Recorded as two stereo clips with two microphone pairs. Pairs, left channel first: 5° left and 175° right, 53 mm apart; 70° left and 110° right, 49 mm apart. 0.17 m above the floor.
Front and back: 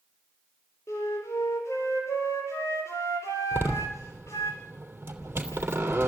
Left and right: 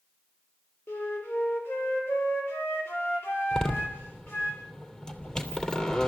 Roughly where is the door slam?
Behind left.